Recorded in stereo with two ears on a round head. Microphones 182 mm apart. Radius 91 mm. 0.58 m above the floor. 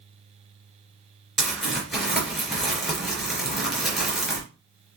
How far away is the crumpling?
About 3.5 m.